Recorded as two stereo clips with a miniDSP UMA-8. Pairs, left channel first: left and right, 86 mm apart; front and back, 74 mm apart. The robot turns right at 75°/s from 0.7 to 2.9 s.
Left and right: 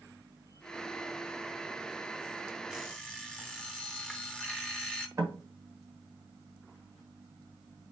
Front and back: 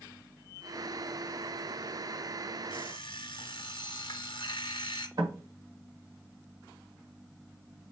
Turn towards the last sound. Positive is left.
turn(degrees=-145)